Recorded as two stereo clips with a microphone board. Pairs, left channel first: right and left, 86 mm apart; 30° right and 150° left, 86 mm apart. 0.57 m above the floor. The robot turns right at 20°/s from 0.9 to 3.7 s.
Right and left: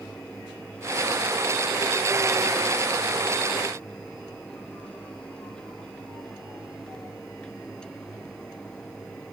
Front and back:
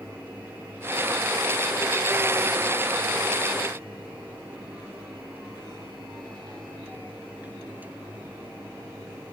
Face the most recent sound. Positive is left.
No sound to turn to.